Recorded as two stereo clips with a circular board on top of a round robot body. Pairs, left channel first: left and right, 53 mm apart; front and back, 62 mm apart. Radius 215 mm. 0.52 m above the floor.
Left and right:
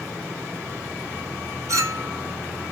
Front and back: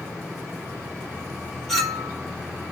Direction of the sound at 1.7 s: 85° right.